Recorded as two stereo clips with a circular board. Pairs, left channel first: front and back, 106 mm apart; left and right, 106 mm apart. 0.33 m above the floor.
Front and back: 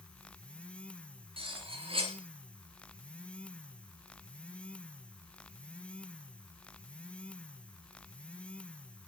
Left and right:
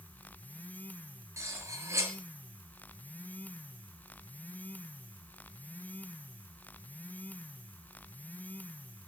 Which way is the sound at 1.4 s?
150° right.